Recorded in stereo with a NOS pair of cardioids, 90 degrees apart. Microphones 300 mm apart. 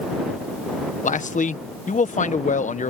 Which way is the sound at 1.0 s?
25° left.